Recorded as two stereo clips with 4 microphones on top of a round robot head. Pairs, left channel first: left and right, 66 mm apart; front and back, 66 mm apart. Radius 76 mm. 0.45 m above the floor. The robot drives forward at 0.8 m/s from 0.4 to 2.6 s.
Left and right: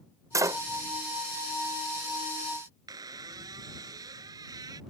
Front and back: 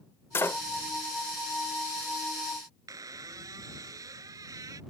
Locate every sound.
0.3 s a door slam: 55° right; by 0.6 s 65° right
2.9 s a squeak: 130° right